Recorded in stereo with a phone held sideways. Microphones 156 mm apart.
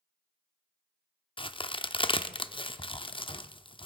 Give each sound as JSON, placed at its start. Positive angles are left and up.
{"t": 1.4, "sound": "a crack", "side_deg": 35, "distance_m": 0.6}